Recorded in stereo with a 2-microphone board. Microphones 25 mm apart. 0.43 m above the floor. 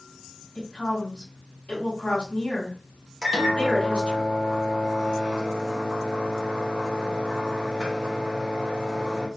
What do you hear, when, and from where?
0.6 s a woman speaking: 45° left (ahead or behind), 2.0 m
3.2 s a microwave: 35° right (ahead or behind), 0.9 m